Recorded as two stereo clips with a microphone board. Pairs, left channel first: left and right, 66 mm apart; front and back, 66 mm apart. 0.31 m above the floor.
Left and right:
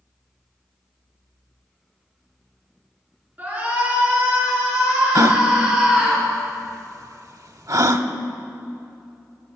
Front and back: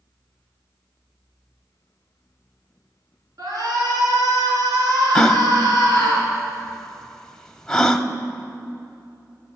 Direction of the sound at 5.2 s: 80° right.